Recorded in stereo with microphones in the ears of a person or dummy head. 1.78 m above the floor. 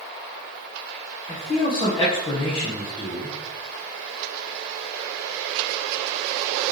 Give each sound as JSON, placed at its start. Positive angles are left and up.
{"t": 1.3, "sound": "a man speaking", "side_deg": 30, "distance_m": 1.0}